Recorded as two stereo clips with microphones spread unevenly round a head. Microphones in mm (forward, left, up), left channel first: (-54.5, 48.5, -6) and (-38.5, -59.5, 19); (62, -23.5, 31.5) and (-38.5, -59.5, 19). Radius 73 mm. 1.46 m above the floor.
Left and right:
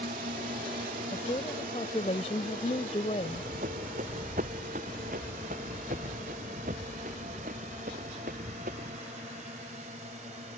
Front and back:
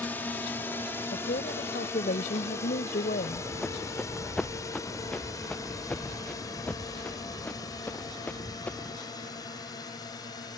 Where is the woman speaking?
45° left.